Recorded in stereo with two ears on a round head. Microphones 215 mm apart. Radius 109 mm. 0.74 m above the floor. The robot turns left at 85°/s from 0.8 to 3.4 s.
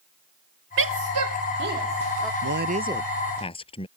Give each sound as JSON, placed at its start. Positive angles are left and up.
{"t": 0.8, "sound": "a woman speaking", "side_deg": -50}
{"t": 2.4, "sound": "a man speaking", "azimuth_deg": -120}